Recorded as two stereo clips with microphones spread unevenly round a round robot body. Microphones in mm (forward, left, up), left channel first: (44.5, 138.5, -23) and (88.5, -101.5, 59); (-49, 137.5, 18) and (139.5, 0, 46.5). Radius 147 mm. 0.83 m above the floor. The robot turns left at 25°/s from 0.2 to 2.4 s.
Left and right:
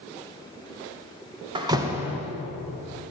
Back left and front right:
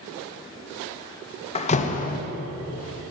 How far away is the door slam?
About 0.5 m.